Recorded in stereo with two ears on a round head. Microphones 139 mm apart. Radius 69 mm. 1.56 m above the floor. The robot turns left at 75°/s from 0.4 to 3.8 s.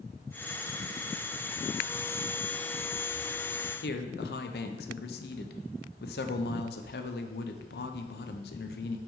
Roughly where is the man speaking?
Left.